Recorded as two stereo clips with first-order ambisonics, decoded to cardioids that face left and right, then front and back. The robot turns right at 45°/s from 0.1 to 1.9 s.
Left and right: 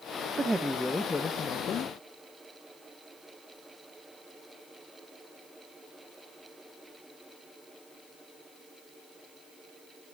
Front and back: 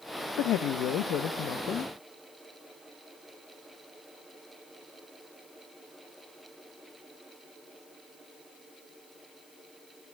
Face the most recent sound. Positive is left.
turn(degrees=50)